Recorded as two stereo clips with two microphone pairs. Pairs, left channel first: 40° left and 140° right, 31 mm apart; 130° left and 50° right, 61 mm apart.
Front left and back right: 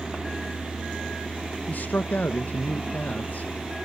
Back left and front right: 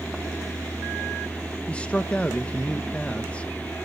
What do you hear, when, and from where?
1.7 s a man speaking: 60° left, 0.9 m